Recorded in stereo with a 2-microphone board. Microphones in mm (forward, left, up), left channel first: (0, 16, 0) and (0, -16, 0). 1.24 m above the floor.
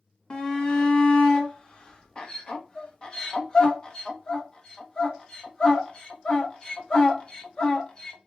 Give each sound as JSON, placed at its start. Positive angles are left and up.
{"t": 0.3, "sound": "a shout", "side_deg": 25, "distance_m": 0.8}